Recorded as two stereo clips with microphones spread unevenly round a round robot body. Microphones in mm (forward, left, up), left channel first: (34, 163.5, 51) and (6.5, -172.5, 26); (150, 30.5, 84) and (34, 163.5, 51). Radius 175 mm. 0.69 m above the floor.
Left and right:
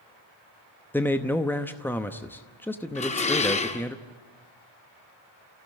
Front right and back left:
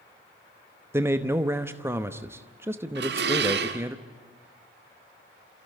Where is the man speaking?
175° left, 0.8 m.